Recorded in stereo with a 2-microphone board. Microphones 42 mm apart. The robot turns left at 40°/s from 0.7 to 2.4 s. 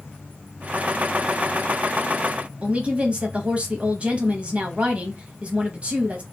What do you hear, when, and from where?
2.6 s a woman speaking: 30° right (ahead or behind), 1.0 m